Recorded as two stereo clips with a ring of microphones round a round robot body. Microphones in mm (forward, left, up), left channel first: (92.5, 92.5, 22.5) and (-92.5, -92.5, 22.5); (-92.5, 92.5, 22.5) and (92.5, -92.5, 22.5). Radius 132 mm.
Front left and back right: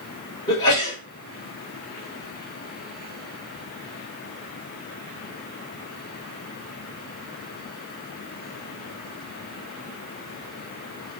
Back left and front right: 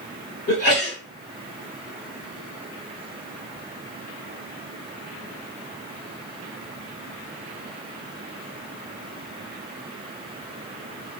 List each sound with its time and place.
0.5 s a sneeze: 115° left, 1.9 m